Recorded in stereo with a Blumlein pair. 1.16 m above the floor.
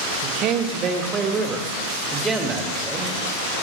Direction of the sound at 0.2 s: 40° right.